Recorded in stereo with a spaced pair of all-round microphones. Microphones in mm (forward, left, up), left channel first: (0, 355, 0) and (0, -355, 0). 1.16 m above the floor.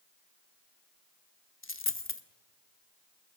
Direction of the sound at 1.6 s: 20° left (ahead or behind).